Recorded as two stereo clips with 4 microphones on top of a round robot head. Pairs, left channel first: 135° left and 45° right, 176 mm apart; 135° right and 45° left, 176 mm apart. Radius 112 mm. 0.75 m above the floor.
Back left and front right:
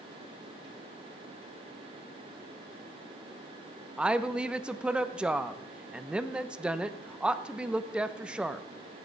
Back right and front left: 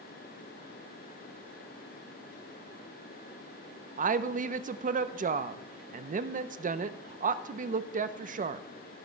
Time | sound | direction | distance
4.0 | a woman speaking | 40° left | 0.6 m